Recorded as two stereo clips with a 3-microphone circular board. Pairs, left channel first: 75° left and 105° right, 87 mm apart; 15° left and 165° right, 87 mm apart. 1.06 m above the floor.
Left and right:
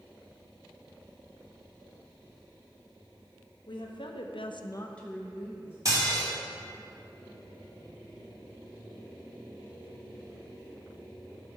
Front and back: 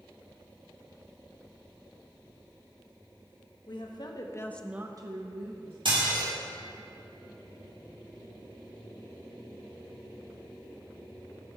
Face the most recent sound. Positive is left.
turn(degrees=-155)